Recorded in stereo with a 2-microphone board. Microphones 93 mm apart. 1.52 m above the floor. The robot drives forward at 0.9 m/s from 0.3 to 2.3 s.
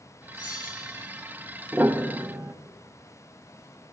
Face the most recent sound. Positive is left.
turn(degrees=-25)  # may be behind; listen again after turning